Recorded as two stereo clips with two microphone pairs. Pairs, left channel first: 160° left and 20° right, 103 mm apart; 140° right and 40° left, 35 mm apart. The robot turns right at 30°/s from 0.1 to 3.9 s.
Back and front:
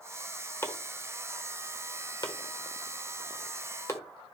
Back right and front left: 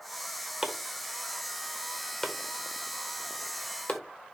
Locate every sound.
0.6 s chopping: 110° left, 1.2 m; by 4.0 s 155° right, 1.2 m